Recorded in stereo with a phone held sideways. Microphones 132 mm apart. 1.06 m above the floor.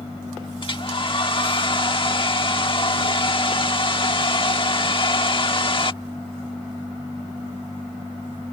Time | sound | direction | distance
0.6 | a hair dryer | 40° left (ahead or behind) | ?